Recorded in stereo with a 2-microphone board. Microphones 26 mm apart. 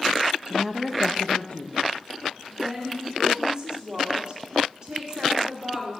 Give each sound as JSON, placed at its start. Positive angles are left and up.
{"t": 0.5, "sound": "a woman speaking", "side_deg": -25, "distance_m": 0.7}
{"t": 2.5, "sound": "a woman speaking", "side_deg": -45, "distance_m": 2.0}